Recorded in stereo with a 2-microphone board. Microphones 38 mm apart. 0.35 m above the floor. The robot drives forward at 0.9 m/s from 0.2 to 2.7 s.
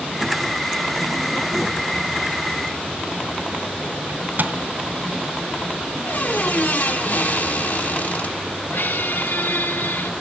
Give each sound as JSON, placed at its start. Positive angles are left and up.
{"t": 4.1, "sound": "a microwave", "side_deg": -60, "distance_m": 2.0}
{"t": 6.0, "sound": "a squeak", "side_deg": 60, "distance_m": 3.0}
{"t": 8.7, "sound": "a squeak", "side_deg": 85, "distance_m": 1.6}